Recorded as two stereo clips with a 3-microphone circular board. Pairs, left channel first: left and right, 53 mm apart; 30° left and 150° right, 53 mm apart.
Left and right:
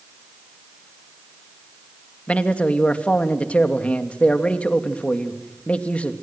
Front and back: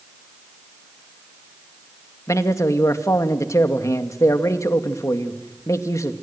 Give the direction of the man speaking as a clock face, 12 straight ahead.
11 o'clock.